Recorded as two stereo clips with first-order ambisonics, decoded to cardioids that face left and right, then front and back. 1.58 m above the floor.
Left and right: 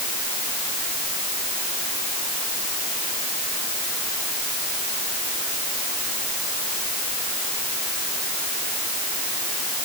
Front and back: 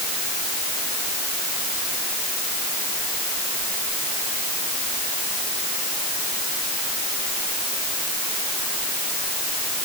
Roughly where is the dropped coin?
No dropped coin in this recording.